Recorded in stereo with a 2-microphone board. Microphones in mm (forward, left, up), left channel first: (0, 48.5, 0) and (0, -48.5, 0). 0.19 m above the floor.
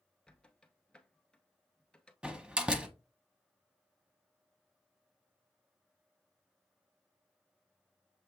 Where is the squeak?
10° left (ahead or behind), 0.7 m.